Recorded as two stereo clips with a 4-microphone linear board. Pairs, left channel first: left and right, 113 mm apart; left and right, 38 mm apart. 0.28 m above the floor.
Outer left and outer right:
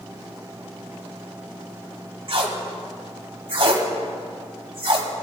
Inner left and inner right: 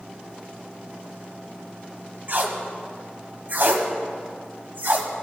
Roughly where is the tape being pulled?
Right.